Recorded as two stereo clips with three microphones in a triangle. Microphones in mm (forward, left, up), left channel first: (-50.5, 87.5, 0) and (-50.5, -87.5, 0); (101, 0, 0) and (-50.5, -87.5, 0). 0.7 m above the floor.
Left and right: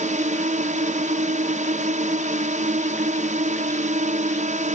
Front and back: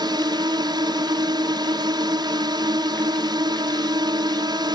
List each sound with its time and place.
0.0 s a drone: 95° right